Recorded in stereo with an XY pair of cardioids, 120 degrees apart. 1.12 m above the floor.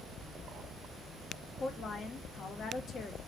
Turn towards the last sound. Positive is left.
turn(degrees=45)